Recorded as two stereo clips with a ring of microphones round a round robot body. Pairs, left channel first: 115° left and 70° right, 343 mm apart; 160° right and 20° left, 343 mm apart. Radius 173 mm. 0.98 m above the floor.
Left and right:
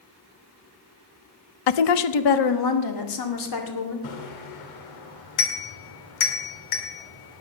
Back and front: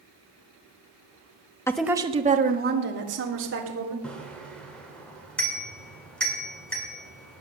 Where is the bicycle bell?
115° left, 2.5 m.